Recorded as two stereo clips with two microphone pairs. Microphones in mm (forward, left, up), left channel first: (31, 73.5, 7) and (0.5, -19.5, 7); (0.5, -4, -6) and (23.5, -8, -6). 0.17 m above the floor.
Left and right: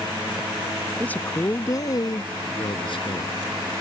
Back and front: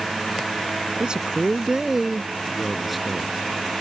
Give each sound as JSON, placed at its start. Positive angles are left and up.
{"t": 1.0, "sound": "a man speaking", "azimuth_deg": 5}